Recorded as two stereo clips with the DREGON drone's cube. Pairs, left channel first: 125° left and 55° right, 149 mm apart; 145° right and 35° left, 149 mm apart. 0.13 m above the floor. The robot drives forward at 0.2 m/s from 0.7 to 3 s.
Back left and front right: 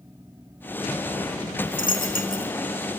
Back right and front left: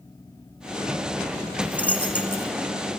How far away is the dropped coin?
About 1.5 m.